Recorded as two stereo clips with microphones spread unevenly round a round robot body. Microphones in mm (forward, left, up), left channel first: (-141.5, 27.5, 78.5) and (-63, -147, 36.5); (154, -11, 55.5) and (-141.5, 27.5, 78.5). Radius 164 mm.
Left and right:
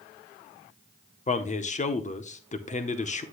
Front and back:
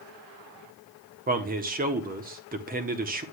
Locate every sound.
1.3 s a man speaking: 140° left, 0.8 m